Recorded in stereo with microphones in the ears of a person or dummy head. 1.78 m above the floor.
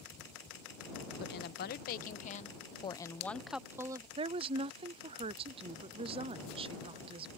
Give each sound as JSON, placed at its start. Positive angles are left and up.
{"t": 1.2, "sound": "a woman speaking", "side_deg": 60}
{"t": 4.2, "sound": "a woman speaking", "side_deg": -30}